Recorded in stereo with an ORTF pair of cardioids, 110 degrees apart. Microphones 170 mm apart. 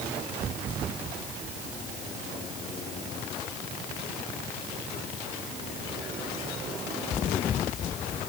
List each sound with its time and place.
Only background noise.